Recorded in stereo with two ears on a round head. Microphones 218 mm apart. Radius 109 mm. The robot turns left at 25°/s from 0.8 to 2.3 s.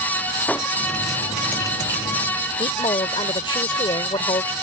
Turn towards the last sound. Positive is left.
turn(degrees=20)  # may be behind; listen again after turning